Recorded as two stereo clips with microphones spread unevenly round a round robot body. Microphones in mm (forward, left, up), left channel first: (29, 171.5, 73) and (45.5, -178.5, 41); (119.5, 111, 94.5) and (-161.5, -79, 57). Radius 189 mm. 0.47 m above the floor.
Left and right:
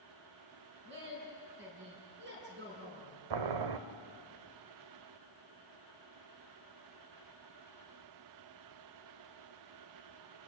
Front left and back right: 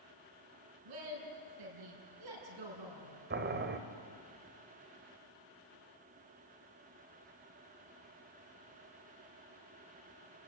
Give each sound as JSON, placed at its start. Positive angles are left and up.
{"t": 0.8, "sound": "a woman speaking", "azimuth_deg": -150, "distance_m": 5.5}
{"t": 3.3, "sound": "boiling", "azimuth_deg": -85, "distance_m": 1.1}